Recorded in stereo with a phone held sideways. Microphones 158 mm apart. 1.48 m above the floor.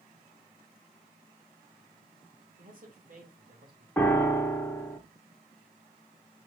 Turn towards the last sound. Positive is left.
turn(degrees=10)  # may be behind; listen again after turning